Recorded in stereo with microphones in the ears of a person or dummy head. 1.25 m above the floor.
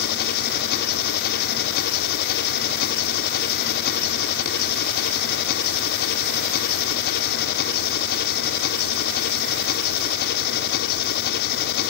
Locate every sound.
0.0 s an engine running: 55° left (ahead or behind), 1.4 m